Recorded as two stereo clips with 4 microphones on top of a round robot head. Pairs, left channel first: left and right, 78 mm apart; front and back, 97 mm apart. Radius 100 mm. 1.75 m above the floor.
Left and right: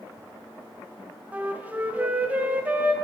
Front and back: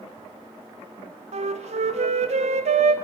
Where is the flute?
165° right, 1.2 m.